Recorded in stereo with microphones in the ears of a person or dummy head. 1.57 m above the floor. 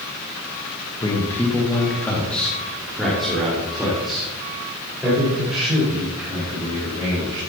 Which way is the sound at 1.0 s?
15° left (ahead or behind).